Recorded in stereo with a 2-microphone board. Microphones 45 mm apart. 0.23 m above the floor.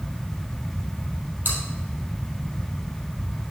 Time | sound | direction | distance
1.4 | chewing | 45° right (ahead or behind) | 3 m